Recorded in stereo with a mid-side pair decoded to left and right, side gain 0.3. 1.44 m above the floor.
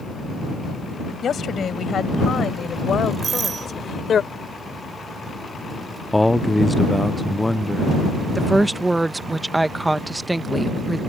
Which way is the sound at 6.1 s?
5° left.